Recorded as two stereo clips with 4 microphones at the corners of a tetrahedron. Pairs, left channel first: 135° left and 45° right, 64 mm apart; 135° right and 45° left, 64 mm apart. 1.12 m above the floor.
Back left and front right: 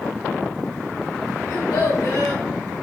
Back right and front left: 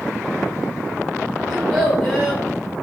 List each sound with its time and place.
1.5 s a child speaking: 130° left, 2 m